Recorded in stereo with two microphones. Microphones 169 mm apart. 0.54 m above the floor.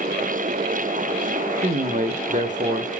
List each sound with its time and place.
1.6 s a man speaking: 50° right (ahead or behind), 1.3 m